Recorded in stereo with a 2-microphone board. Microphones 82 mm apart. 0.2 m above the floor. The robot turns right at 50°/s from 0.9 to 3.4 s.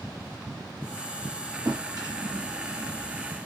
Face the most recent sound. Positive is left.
turn(degrees=-25)